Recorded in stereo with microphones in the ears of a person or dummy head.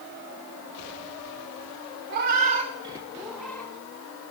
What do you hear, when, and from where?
2.1 s a cat meowing: 55° right (ahead or behind), 1.1 m; by 3.7 s 10° left (ahead or behind), 1.2 m